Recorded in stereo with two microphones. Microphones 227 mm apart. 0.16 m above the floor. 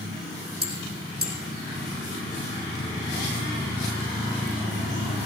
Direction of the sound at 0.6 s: 45° right (ahead or behind).